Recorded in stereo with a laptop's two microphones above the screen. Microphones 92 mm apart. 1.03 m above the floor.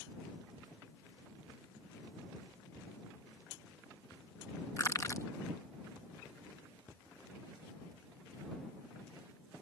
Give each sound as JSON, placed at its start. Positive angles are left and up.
{"t": 4.8, "sound": "crushing", "side_deg": 35}